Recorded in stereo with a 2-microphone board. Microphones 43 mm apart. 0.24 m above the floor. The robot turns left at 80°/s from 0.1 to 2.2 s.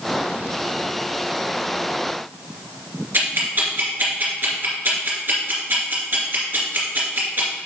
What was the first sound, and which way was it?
Ticking, 60° right (ahead or behind).